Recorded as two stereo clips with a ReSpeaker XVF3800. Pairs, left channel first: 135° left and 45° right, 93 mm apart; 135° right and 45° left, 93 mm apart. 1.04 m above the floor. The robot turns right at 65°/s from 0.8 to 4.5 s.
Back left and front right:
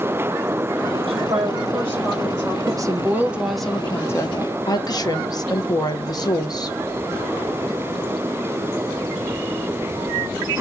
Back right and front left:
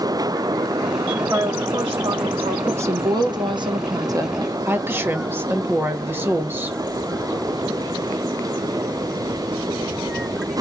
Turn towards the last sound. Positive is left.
turn(degrees=105)